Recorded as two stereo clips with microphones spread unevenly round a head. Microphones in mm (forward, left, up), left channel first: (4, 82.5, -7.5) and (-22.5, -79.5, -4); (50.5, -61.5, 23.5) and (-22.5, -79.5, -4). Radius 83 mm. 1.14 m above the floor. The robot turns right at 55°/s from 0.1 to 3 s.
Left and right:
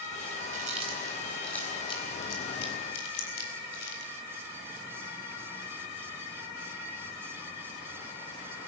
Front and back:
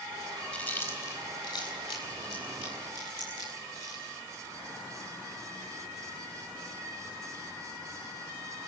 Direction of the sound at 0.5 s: 55° right.